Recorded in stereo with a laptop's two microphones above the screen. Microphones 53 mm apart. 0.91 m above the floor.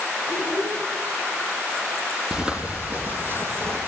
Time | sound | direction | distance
0.3 | a child speaking | 80° right | 7.5 m
2.3 | footsteps | 15° right (ahead or behind) | 2 m